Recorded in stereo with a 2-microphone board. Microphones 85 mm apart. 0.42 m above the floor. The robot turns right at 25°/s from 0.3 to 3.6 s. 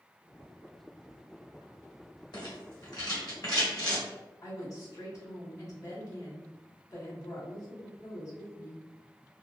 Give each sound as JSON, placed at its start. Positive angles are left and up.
{"t": 2.3, "sound": "a rattle", "side_deg": 55, "distance_m": 1.6}
{"t": 4.4, "sound": "a woman speaking", "side_deg": 30, "distance_m": 1.5}